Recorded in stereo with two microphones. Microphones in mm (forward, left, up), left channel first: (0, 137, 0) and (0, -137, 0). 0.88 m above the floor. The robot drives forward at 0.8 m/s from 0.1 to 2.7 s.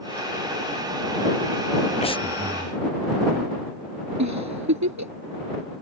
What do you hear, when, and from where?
2.0 s breathing: 25° left (ahead or behind); by 2.8 s 10° left (ahead or behind)
4.2 s a giggle: 85° right